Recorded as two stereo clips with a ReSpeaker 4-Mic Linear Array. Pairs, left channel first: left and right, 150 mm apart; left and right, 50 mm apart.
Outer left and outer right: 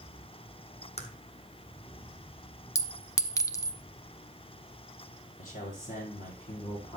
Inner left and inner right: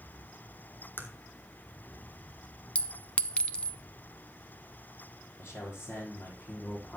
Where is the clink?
20° left (ahead or behind), 0.6 m.